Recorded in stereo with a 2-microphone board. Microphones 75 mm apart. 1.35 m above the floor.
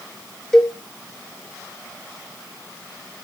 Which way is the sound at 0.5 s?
5° left (ahead or behind).